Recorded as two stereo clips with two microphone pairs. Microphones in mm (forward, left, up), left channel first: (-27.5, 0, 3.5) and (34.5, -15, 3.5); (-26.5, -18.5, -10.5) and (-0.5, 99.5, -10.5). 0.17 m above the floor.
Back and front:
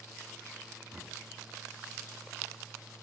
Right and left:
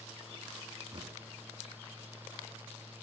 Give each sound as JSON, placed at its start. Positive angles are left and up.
{"t": 0.9, "sound": "knocking", "azimuth_deg": 55, "distance_m": 1.4}